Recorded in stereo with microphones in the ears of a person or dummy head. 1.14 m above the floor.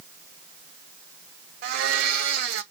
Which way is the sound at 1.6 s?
60° right (ahead or behind).